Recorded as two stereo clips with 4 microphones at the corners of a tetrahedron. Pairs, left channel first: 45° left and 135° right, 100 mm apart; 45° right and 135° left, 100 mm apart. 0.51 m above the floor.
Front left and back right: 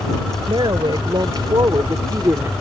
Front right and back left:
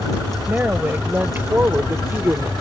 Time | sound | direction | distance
0.5 | a woman speaking | 155° right | ?